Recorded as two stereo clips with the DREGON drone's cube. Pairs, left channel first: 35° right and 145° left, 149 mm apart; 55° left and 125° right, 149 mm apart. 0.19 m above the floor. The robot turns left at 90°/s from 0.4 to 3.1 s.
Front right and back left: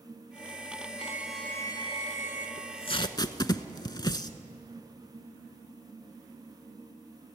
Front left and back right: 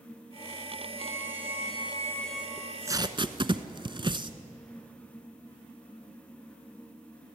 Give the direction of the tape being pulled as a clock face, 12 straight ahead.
1 o'clock.